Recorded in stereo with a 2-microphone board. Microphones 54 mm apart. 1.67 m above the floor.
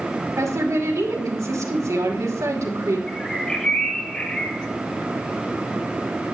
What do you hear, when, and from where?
0.4 s a woman speaking: 75° right (ahead or behind), 2.5 m
3.1 s a bird: 15° left (ahead or behind), 1.8 m